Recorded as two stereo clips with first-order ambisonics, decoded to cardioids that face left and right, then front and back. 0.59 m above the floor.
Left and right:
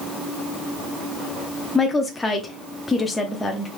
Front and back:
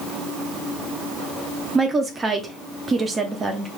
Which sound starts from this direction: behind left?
A woman speaking, at 1.8 s.